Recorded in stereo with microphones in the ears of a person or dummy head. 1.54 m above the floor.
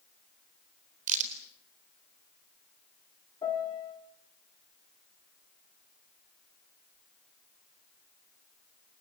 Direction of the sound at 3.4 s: 20° left (ahead or behind).